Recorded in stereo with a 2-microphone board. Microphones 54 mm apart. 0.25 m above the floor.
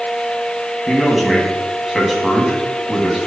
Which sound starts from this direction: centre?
A man speaking, at 0.9 s.